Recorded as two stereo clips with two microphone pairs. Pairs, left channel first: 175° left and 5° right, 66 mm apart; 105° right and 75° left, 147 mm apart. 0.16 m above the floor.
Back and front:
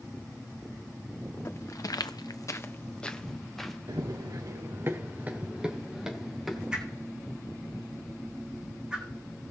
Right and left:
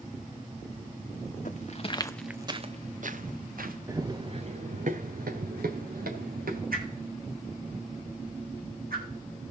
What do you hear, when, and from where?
1.4 s footsteps: 140° right, 1.0 m; by 3.8 s 90° left, 1.6 m
3.9 s running footsteps: 5° left, 1.0 m; by 6.6 s 85° left, 2 m
6.7 s a whoosh: 75° left, 2.5 m